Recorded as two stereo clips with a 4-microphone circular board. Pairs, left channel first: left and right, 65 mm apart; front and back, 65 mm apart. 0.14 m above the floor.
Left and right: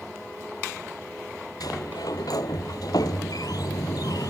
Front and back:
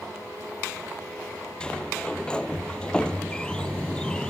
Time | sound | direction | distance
1.6 | a sliding door | 75° left | 0.7 m